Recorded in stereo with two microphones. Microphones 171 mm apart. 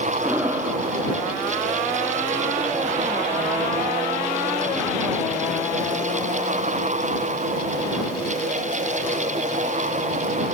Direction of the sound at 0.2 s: 10° right (ahead or behind).